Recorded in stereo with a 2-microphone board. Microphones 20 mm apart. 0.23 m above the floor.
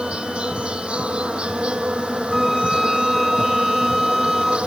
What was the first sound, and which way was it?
An insect, 70° right (ahead or behind).